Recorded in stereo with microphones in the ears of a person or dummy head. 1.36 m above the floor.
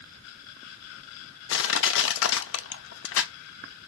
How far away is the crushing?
About 0.7 m.